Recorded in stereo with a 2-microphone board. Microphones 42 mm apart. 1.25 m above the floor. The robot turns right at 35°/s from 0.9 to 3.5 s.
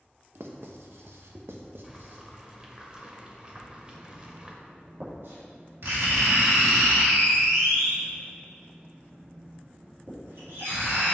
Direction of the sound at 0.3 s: 75° right (ahead or behind).